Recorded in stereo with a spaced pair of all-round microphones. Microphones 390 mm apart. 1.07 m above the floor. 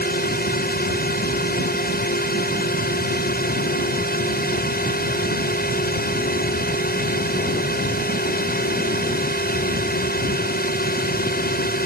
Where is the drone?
25° left (ahead or behind).